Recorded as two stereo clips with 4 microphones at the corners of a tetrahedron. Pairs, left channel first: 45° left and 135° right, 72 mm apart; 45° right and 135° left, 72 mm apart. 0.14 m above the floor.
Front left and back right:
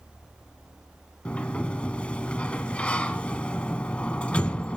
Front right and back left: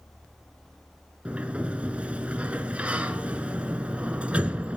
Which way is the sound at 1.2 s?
95° left.